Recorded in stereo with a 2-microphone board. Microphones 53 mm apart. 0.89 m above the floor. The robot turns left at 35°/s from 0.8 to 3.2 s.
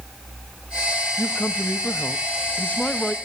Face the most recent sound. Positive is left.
turn(degrees=15)